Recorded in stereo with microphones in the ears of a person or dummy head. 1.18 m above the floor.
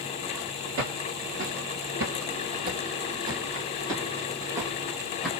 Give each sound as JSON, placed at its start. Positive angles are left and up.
{"t": 0.8, "sound": "footsteps", "side_deg": -60, "distance_m": 2.5}